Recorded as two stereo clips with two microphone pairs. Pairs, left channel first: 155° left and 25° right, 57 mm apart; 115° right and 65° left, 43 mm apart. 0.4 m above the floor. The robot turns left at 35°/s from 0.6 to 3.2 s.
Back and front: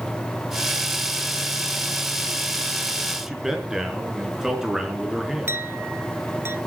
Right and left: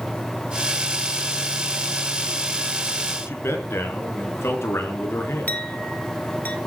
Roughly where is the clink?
Right.